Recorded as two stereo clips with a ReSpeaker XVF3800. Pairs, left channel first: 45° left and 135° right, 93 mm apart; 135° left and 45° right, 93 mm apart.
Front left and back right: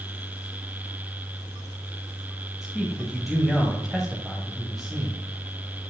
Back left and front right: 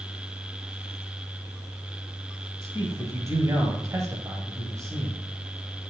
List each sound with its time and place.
2.6 s a man speaking: 50° right, 1.8 m